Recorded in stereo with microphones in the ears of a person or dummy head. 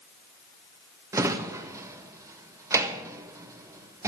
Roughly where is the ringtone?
No ringtone in this recording.